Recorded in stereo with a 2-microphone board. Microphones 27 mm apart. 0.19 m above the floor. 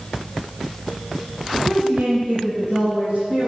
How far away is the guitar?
I don't hear a guitar.